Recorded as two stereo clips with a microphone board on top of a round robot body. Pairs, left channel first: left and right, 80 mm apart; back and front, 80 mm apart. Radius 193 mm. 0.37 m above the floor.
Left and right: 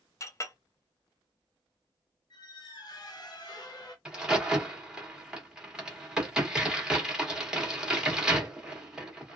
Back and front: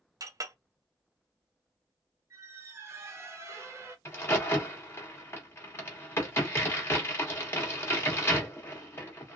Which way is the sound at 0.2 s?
40° left.